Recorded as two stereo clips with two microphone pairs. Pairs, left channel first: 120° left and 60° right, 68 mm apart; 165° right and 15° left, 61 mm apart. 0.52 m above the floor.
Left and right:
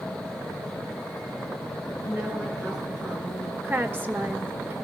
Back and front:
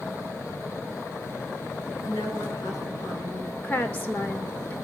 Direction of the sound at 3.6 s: 110° right.